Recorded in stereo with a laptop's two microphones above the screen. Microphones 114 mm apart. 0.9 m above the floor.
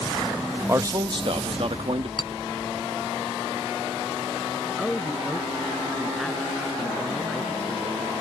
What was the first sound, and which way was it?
A man speaking, 25° right (ahead or behind).